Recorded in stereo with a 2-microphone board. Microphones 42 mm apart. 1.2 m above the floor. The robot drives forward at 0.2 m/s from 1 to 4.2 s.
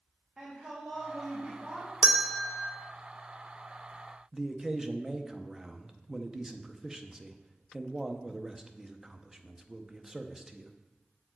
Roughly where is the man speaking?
Centre.